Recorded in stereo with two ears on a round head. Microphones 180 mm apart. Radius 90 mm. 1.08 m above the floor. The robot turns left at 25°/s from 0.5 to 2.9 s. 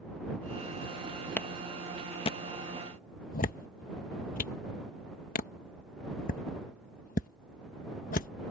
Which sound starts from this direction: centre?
A clap, at 1.4 s.